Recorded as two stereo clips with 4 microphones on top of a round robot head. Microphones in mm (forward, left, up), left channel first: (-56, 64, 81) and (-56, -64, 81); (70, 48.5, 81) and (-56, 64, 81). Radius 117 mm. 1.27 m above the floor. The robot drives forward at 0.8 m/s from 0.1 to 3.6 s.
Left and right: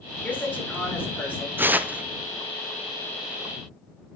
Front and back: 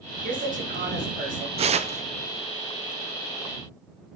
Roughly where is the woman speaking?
Behind.